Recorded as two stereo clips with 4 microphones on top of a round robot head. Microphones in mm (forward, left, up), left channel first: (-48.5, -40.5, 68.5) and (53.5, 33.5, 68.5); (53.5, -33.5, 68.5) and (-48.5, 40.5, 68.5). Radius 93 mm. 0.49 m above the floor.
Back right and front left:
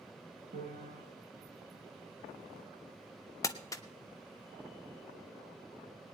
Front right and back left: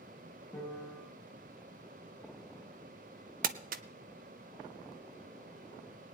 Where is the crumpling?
150° left, 0.5 m.